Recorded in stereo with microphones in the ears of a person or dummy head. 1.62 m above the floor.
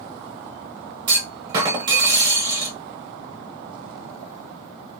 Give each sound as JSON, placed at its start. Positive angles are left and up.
{"t": 1.1, "sound": "a clunk", "side_deg": -25, "distance_m": 0.7}